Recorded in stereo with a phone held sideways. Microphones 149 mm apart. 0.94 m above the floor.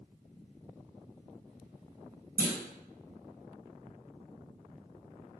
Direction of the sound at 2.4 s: 70° right (ahead or behind).